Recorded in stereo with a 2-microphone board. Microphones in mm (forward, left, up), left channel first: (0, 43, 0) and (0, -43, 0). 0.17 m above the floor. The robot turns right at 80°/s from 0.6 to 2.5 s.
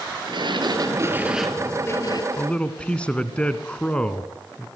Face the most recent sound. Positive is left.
turn(degrees=15)  # may be behind; listen again after turning